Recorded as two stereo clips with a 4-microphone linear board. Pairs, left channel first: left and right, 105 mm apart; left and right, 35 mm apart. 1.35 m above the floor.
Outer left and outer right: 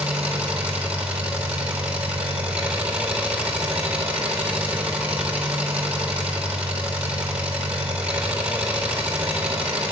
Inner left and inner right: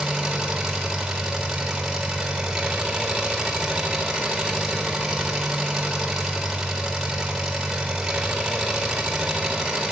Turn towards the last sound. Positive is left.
turn(degrees=-10)  # may be behind; listen again after turning